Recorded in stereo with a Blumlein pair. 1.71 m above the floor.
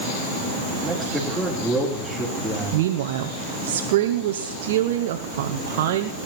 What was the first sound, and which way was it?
A man speaking, straight ahead.